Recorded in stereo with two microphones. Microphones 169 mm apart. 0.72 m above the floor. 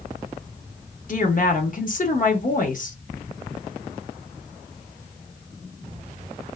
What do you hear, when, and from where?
1.1 s a woman speaking: 50° left (ahead or behind), 0.8 m